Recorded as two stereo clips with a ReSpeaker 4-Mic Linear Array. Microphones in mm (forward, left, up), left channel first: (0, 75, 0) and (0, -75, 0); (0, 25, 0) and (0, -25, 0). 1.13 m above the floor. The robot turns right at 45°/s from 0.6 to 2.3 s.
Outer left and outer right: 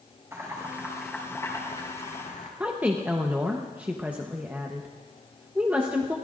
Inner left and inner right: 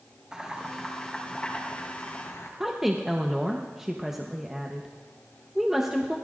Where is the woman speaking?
10° right (ahead or behind), 1.0 m.